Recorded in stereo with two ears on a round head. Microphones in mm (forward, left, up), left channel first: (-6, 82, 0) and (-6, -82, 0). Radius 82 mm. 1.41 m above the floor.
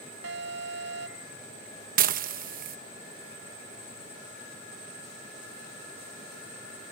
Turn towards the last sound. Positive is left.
turn(degrees=-50)  # may be behind; listen again after turning